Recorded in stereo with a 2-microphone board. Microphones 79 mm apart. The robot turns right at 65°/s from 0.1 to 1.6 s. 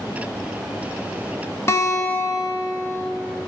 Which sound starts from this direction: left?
A guitar, at 1.7 s.